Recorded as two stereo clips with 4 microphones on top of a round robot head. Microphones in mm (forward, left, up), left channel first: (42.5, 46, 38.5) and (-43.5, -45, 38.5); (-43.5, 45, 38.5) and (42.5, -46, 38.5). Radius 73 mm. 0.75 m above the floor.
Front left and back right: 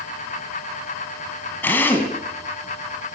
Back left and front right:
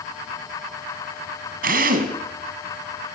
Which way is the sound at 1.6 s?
30° right.